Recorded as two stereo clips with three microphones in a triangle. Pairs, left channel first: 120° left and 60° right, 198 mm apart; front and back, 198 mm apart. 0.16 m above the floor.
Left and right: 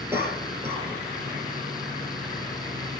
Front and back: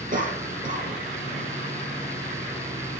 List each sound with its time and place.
0.1 s a cough: 140° right, 4.5 m